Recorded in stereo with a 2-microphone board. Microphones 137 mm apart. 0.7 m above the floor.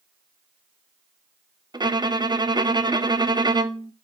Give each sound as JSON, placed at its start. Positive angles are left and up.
{"t": 1.7, "sound": "a violin", "side_deg": -30, "distance_m": 0.6}